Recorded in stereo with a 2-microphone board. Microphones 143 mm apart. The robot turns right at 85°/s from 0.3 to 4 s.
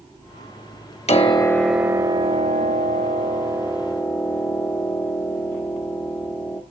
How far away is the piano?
About 0.9 m.